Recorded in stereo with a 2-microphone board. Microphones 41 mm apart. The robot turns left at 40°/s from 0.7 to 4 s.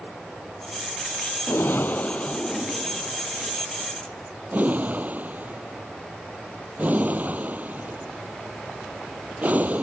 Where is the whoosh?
60° left (ahead or behind); by 9.8 s 40° right (ahead or behind).